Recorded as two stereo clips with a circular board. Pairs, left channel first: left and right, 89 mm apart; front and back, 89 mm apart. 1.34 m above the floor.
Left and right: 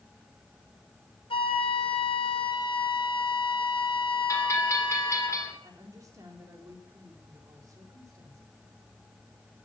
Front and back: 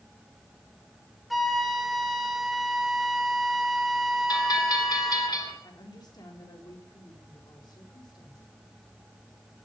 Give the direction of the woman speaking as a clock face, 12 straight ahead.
1 o'clock.